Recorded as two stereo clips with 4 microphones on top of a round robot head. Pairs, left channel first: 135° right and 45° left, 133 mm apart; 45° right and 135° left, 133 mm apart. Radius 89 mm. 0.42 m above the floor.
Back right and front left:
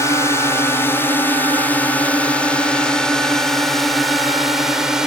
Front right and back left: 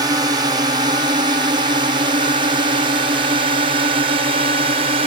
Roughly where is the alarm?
I don't hear an alarm.